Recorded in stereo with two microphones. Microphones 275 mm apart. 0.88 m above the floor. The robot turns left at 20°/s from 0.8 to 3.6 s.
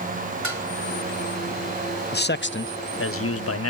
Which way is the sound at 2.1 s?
35° left (ahead or behind).